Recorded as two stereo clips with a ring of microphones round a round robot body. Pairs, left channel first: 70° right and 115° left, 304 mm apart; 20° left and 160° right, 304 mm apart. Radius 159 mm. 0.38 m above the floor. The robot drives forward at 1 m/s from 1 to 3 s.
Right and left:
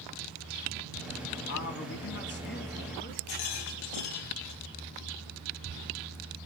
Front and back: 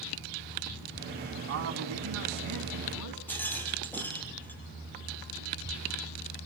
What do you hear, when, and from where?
1.5 s a man speaking: 110° right, 4 m; by 3.2 s 130° right, 4.5 m
3.3 s a rattle: 60° right, 4 m